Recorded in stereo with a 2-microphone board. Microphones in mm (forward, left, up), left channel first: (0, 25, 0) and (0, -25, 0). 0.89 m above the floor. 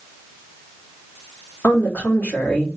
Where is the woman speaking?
40° left (ahead or behind), 2.5 m.